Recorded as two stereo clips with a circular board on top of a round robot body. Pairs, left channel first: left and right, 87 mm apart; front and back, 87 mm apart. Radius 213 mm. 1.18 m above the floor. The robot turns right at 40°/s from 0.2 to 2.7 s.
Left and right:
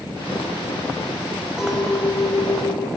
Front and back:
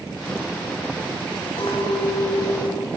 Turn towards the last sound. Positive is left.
turn(degrees=35)